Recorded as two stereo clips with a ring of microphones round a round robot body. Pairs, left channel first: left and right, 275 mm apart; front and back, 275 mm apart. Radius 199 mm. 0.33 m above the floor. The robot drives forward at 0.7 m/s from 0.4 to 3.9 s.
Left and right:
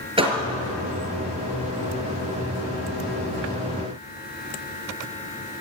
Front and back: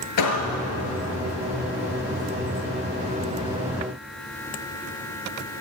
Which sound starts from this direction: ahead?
A door slam, at 0.2 s.